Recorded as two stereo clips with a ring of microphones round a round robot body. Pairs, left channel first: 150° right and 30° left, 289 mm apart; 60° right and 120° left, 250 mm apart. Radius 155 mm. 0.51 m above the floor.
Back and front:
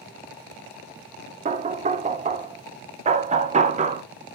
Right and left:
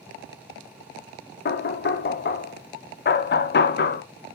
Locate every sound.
1.4 s knocking: 30° right, 0.8 m